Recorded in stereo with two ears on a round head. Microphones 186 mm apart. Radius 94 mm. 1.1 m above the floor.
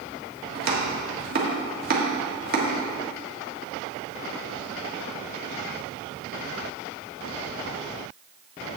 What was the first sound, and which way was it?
Chopping, 45° right (ahead or behind).